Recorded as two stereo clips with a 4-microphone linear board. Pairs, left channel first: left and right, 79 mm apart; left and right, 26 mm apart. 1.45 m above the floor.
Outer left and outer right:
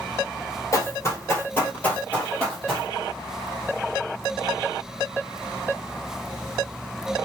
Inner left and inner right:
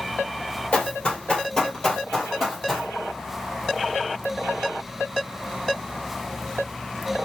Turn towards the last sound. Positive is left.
turn(degrees=0)  # may be behind; listen again after turning